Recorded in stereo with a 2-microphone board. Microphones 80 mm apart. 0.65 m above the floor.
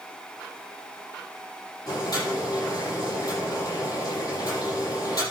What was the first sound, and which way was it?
Boiling, 50° left (ahead or behind).